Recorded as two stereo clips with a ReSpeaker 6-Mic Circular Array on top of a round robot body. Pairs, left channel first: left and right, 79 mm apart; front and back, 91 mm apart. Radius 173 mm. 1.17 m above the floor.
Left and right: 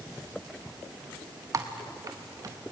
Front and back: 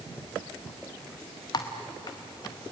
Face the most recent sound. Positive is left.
turn(degrees=-45)